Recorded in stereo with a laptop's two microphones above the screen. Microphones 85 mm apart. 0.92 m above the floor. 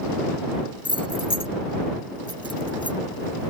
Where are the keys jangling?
80° left.